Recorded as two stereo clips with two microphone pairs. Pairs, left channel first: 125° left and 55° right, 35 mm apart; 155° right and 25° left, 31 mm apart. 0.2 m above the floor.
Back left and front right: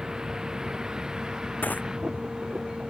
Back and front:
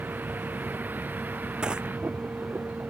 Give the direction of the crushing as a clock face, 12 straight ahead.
9 o'clock.